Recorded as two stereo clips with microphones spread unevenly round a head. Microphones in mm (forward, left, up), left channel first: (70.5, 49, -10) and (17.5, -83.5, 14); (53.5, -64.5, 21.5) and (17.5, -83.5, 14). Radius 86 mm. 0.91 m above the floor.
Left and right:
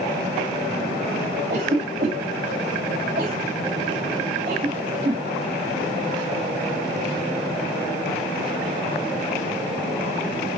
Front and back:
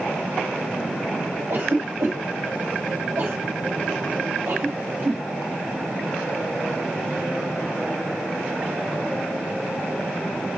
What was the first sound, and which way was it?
A cough, 150° right.